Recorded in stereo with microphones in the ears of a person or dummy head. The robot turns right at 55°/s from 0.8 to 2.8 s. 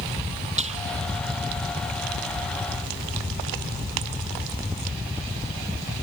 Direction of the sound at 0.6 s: 30° right (ahead or behind).